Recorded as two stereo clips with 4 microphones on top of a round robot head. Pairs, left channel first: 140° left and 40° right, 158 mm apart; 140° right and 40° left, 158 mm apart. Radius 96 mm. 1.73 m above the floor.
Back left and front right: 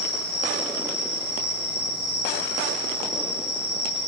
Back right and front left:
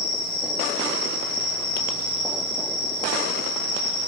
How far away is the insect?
About 1.5 m.